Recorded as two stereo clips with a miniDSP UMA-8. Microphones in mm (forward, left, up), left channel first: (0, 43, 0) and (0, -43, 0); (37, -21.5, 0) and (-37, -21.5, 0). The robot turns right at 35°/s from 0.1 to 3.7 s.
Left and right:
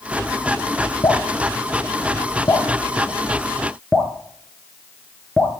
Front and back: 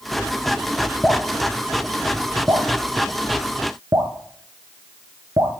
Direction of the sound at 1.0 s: 85° left.